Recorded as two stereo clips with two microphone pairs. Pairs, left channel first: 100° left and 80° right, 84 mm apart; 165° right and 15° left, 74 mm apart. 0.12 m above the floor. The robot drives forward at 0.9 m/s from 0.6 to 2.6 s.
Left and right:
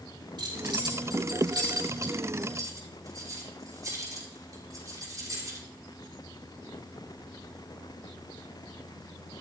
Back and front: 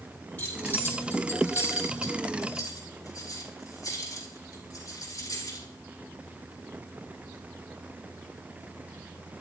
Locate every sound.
0.4 s keys jangling: 95° right, 3 m; by 5.7 s 125° right, 4 m